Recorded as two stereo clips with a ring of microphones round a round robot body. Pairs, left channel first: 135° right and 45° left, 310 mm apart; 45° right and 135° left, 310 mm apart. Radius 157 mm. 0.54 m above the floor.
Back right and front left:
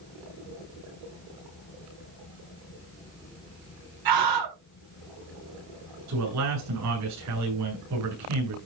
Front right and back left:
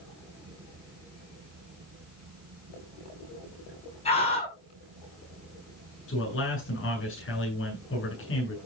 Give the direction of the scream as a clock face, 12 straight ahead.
11 o'clock.